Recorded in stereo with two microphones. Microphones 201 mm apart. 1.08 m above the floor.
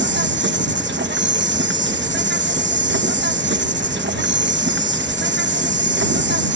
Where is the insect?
65° right (ahead or behind).